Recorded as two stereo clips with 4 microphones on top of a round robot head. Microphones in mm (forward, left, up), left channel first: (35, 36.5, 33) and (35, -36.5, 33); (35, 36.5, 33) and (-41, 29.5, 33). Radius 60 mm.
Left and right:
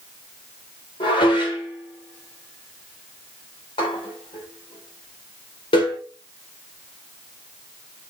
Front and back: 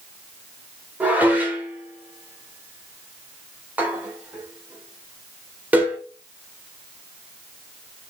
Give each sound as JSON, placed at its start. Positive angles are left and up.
{"t": 1.0, "sound": "dishes clattering", "azimuth_deg": 115, "distance_m": 3.0}